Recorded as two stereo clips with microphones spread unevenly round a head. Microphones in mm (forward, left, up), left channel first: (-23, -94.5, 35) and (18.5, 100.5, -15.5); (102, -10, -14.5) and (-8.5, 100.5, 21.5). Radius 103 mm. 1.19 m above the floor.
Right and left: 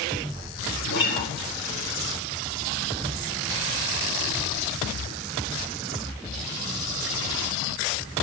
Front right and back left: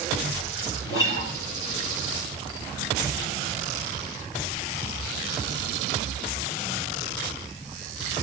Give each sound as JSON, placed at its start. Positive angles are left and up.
{"t": 0.9, "sound": "a guitar", "azimuth_deg": -65, "distance_m": 4.0}